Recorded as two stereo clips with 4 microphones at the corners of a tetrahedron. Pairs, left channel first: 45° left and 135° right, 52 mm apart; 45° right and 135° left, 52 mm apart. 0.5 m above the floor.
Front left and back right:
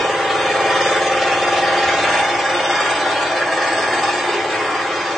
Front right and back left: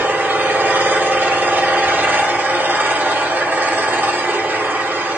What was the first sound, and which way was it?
An engine running, 145° left.